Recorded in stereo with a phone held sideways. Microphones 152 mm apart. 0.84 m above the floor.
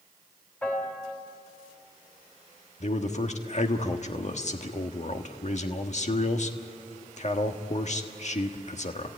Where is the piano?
15° left (ahead or behind), 3 m.